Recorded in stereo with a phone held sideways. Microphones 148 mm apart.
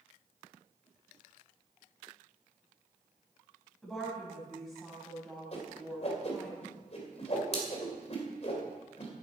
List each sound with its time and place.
3.8 s a woman speaking: centre (ahead or behind), 5 m
5.5 s a whoosh: 45° left (ahead or behind), 2.5 m